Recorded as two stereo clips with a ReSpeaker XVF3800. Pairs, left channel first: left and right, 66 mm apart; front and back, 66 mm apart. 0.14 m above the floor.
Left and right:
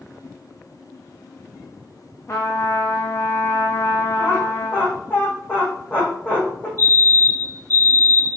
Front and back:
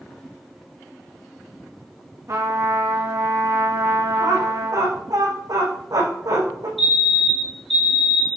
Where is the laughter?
150° left, 6.5 m.